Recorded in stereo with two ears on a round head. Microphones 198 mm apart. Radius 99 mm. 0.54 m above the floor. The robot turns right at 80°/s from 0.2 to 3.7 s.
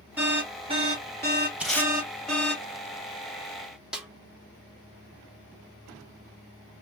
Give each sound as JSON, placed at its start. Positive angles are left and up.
{"t": 0.2, "sound": "an alarm", "side_deg": -10, "distance_m": 1.9}
{"t": 1.6, "sound": "tape being pulled", "side_deg": -5, "distance_m": 2.0}
{"t": 3.9, "sound": "a snare drum", "side_deg": -5, "distance_m": 1.3}